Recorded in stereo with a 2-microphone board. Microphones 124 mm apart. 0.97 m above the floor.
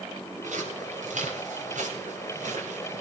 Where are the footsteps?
85° right, 9.5 m; by 3.0 s 80° right, 8.5 m.